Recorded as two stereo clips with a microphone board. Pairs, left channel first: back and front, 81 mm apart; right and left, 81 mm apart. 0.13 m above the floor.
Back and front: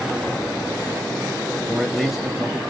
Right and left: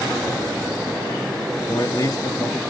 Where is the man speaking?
90° right, 1.8 m.